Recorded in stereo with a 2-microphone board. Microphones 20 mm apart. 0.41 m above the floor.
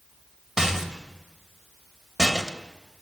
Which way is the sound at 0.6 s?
30° right (ahead or behind).